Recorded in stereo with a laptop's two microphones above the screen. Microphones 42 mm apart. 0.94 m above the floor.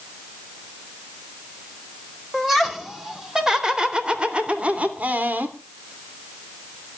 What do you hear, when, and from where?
2.3 s laughter: 5° right (ahead or behind), 4.5 m; by 5.6 s 45° right (ahead or behind), 3 m